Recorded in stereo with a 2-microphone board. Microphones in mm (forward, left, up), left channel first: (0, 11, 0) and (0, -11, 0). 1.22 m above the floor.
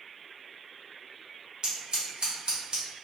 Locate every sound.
1.6 s scissors: 50° right (ahead or behind), 1.2 m